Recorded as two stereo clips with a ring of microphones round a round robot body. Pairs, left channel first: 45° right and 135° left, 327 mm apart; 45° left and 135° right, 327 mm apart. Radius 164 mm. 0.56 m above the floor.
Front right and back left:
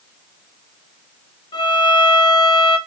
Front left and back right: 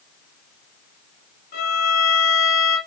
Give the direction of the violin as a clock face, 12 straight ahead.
11 o'clock.